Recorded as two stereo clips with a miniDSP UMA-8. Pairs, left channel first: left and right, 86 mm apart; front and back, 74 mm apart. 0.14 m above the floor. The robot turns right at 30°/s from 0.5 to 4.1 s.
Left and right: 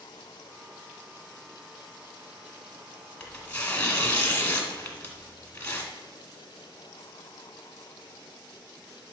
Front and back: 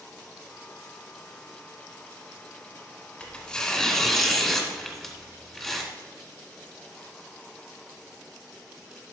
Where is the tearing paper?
50° left, 1.4 m; by 5.9 s 75° left, 1.4 m.